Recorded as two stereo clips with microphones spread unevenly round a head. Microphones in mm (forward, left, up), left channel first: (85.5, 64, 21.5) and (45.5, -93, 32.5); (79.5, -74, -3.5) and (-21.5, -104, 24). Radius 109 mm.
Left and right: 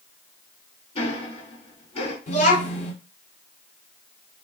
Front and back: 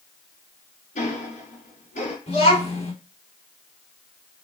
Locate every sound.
0.9 s ticking: 20° left, 3 m
2.3 s a child speaking: 30° left, 3 m